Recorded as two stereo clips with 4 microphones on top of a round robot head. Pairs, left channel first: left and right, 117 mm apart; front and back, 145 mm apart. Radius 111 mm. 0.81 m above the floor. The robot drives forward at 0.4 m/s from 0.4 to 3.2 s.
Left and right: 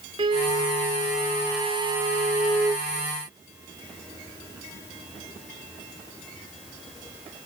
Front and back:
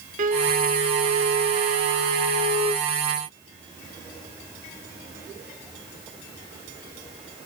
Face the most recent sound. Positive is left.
turn(degrees=-160)